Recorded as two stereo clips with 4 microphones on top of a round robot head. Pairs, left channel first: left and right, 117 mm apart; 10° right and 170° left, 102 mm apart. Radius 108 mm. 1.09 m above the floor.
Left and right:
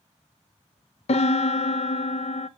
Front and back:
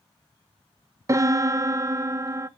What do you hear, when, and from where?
1.1 s a piano: 110° left, 0.8 m